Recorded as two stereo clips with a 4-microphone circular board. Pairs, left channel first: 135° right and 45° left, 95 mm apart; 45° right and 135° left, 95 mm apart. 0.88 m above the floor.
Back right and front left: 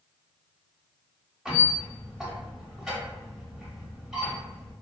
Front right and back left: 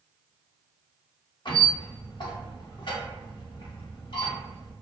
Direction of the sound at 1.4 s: 40° right.